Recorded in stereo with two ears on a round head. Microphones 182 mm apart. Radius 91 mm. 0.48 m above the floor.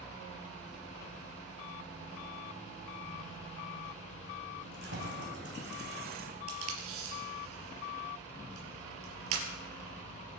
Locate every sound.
4.6 s keys jangling: 60° right (ahead or behind), 2.5 m; by 6.4 s 40° right (ahead or behind), 1.3 m
6.5 s tape being pulled: 85° right, 3 m